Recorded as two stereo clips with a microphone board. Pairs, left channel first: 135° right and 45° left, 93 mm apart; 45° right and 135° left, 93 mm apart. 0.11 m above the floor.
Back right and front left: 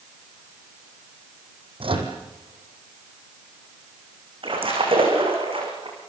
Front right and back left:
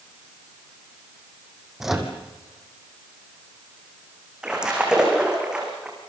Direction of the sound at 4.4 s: 55° left.